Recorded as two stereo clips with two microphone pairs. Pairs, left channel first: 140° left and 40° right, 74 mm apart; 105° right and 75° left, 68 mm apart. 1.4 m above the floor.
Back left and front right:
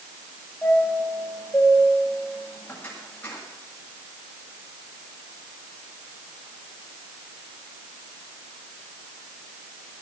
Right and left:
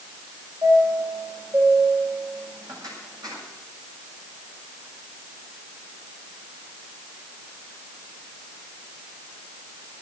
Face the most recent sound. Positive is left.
turn(degrees=70)